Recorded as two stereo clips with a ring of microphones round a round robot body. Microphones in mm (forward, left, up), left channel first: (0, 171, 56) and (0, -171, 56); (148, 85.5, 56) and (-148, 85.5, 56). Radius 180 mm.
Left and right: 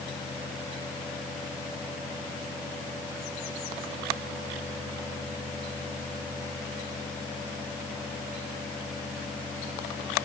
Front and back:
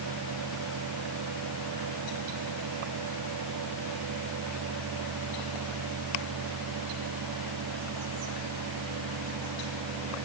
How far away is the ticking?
I don't hear ticking.